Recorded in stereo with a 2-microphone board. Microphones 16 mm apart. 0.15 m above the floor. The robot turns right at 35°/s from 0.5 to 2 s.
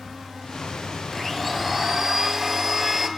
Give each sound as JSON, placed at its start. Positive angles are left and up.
{"t": 1.1, "sound": "a blender", "azimuth_deg": 175, "distance_m": 0.7}